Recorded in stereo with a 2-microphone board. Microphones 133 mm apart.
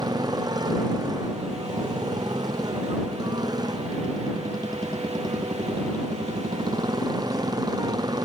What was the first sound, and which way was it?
A motorcycle, 30° right (ahead or behind).